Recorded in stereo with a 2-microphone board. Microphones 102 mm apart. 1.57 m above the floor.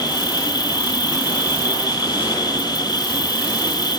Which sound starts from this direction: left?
An insect, at 0.0 s.